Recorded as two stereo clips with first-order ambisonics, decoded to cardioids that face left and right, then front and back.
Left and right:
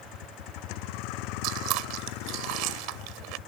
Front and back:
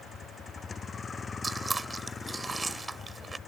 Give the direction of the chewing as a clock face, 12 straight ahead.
3 o'clock.